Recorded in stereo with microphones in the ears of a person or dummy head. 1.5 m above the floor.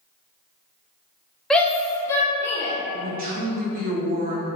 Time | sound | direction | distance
1.5 | a shout | 5° left (ahead or behind) | 0.6 m
2.9 | a man speaking | 45° right (ahead or behind) | 0.7 m